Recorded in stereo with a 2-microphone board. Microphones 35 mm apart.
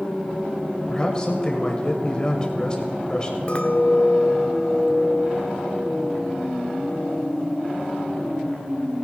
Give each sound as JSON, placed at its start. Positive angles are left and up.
{"t": 0.9, "sound": "a man speaking", "side_deg": 25, "distance_m": 2.0}
{"t": 3.5, "sound": "a clink", "side_deg": 30, "distance_m": 1.0}